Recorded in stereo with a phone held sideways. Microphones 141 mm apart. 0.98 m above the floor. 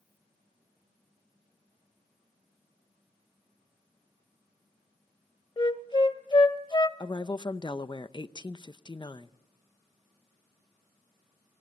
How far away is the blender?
I don't hear a blender.